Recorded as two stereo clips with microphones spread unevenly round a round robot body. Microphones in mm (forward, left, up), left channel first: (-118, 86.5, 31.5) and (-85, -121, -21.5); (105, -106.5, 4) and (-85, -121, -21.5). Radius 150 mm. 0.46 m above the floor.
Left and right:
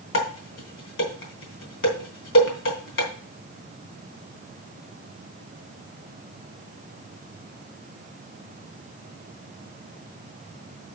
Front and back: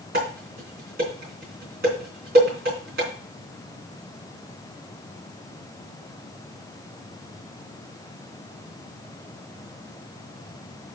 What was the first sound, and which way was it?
Dishes clattering, 125° left.